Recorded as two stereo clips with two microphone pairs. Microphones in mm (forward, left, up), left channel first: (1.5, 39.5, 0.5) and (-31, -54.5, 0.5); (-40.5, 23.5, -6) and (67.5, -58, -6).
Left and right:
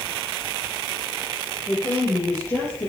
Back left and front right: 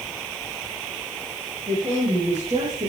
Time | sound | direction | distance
1.7 | a woman speaking | 15° left | 4 m